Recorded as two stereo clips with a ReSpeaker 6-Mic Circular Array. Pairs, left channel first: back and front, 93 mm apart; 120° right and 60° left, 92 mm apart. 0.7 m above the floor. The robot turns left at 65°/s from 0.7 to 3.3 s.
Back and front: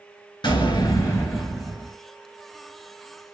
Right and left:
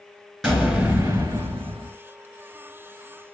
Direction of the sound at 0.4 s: 150° left.